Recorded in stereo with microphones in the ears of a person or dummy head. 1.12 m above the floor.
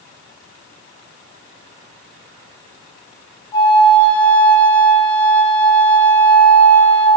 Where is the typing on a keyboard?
No typing on a keyboard in this recording.